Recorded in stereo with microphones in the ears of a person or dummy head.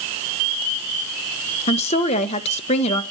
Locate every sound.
1.7 s a woman speaking: 35° left (ahead or behind), 1.5 m